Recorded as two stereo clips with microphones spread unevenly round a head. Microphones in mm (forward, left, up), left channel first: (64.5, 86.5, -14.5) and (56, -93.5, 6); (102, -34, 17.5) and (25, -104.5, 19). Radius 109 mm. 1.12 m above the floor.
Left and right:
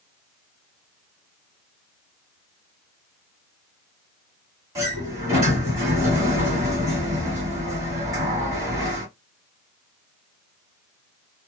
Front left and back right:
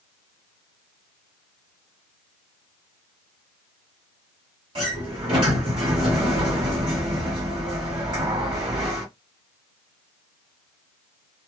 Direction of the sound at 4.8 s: 150° right.